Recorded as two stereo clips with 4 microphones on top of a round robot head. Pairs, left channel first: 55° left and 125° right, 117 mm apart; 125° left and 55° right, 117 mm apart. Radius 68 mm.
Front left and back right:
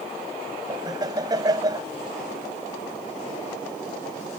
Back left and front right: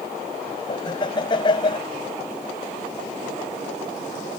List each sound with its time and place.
0.7 s laughter: 175° left